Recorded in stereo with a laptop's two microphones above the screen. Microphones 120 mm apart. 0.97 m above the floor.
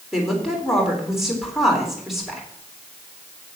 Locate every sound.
0.1 s a woman speaking: centre (ahead or behind), 3.5 m